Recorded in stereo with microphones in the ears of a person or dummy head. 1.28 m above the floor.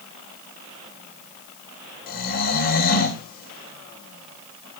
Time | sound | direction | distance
2.1 | snoring | 40° left (ahead or behind) | 1.7 m